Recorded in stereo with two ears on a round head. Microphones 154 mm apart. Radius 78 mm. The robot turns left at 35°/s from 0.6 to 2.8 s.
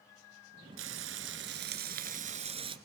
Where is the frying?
80° right, 1.7 m; by 2.8 s 150° right, 1.7 m.